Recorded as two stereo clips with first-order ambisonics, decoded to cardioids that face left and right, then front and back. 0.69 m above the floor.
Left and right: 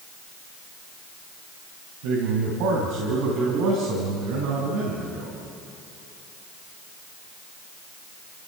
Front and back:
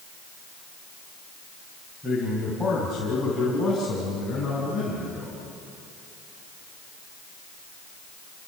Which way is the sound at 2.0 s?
85° right.